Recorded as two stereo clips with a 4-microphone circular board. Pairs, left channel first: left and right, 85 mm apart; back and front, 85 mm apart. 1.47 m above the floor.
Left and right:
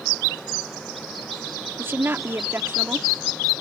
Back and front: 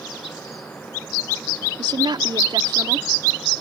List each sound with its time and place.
1.8 s a woman speaking: 25° right